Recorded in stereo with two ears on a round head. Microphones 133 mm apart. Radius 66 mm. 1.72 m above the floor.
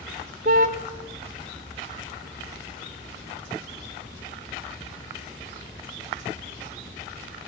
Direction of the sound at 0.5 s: 60° right (ahead or behind).